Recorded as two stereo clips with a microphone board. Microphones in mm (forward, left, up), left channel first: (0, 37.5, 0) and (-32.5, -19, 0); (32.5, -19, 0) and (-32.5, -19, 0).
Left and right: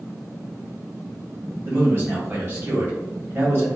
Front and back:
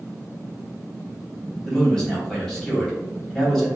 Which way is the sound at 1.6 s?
75° right.